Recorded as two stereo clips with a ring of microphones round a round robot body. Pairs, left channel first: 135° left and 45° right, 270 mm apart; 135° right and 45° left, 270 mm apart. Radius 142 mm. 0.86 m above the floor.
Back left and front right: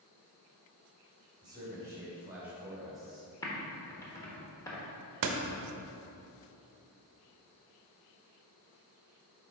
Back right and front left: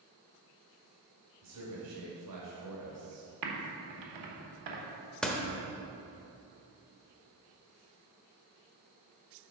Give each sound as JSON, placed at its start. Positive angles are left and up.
{"t": 1.4, "sound": "a man speaking", "azimuth_deg": 30, "distance_m": 2.5}
{"t": 3.4, "sound": "typing on a keyboard", "azimuth_deg": 55, "distance_m": 1.2}
{"t": 5.2, "sound": "a door slam", "azimuth_deg": -50, "distance_m": 0.8}